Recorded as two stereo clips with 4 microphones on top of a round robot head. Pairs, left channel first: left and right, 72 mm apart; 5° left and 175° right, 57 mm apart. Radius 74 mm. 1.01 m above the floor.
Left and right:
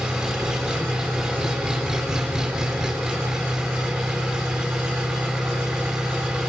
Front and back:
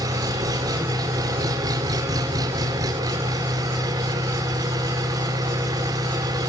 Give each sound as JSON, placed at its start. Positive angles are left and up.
{"t": 0.0, "sound": "an engine running", "azimuth_deg": -170, "distance_m": 3.5}